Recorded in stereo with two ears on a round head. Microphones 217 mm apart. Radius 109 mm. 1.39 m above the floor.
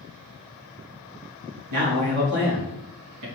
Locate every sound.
1.7 s a man speaking: 80° right, 2 m